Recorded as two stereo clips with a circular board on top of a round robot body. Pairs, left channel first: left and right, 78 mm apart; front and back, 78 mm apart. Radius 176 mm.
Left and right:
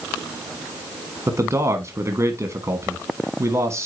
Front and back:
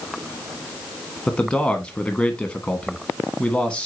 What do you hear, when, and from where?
1.3 s a man speaking: 70° right, 1.5 m